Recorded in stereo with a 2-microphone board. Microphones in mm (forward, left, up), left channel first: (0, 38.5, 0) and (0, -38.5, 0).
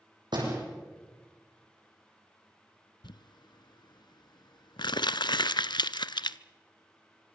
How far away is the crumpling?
About 0.6 m.